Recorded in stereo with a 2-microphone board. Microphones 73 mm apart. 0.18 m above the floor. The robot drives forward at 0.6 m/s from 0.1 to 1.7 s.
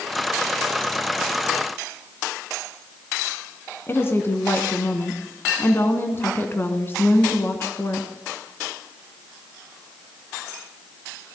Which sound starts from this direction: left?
A woman speaking, at 3.9 s.